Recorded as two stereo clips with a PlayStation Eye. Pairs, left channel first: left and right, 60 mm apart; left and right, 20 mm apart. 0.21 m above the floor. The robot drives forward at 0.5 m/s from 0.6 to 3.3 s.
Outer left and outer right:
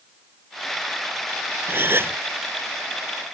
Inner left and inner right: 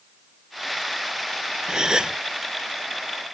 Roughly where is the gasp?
Right.